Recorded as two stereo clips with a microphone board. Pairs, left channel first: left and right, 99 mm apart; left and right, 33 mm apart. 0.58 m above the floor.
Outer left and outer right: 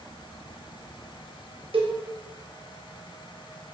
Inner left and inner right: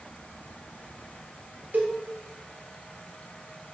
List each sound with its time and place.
1.7 s a cowbell: 65° right (ahead or behind), 0.6 m